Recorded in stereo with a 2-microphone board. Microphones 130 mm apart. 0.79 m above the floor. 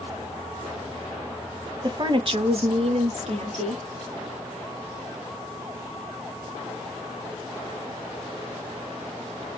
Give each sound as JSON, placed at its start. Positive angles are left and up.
{"t": 1.8, "sound": "a woman speaking", "side_deg": -30, "distance_m": 0.8}